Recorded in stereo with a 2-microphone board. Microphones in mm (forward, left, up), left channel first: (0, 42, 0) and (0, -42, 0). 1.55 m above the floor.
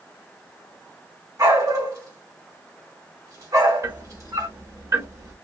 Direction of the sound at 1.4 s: 45° right (ahead or behind).